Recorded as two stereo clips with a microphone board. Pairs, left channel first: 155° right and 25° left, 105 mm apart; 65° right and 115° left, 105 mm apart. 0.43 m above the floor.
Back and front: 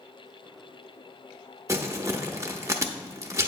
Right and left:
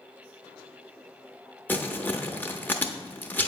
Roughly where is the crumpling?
Ahead.